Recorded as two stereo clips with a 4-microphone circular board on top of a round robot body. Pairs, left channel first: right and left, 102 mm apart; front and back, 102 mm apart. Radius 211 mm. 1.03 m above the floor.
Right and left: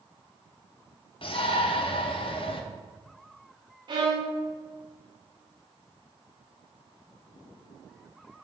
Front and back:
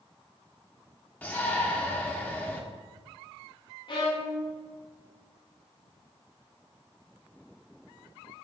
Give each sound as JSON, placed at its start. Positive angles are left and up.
{"t": 1.2, "sound": "a shout", "azimuth_deg": -70, "distance_m": 1.2}
{"t": 3.9, "sound": "a violin", "azimuth_deg": 45, "distance_m": 1.4}